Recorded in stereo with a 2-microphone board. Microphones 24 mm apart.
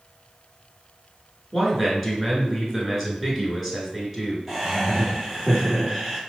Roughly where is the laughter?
Centre.